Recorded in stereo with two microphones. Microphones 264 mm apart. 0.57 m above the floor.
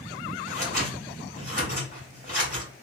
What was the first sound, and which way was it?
Scissors, 30° right (ahead or behind).